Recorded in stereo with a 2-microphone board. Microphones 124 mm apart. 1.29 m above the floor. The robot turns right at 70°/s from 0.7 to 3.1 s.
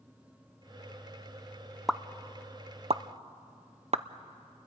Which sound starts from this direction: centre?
A pop, at 1.9 s.